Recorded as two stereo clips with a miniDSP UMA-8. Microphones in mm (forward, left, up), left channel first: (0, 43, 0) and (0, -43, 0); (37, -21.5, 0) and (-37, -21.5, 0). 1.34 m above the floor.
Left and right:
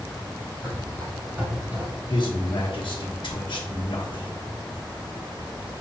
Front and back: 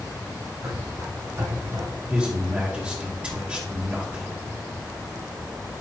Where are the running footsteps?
160° right, 3 m; by 1.9 s 150° right, 1.6 m.